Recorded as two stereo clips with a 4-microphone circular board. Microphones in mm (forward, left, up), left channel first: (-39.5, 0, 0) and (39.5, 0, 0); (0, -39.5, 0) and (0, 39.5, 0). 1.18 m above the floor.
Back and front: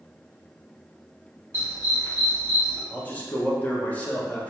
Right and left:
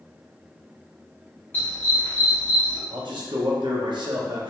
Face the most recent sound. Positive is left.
turn(degrees=110)